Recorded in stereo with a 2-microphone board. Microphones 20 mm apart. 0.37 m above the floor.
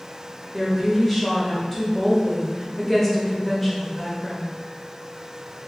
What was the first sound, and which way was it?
A woman speaking, 15° left (ahead or behind).